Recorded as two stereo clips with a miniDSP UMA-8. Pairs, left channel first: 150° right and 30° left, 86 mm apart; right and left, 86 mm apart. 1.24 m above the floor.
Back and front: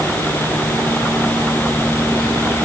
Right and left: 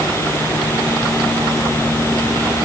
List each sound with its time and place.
Only background noise.